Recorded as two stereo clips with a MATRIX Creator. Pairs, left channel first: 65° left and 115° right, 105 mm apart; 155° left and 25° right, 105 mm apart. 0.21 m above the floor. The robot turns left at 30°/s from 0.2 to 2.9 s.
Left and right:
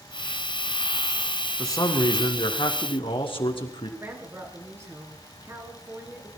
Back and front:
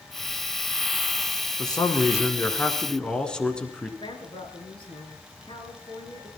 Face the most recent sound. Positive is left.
turn(degrees=-175)